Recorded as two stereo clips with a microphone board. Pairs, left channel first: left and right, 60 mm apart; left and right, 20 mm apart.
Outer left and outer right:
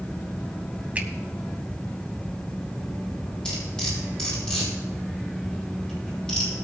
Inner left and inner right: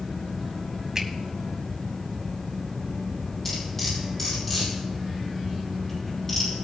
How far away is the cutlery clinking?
About 6.5 m.